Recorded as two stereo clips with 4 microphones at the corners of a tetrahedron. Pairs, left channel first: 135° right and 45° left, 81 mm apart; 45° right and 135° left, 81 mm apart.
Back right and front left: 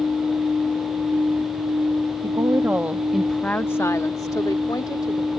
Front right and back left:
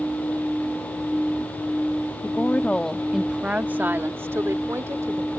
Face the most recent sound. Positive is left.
turn(degrees=-170)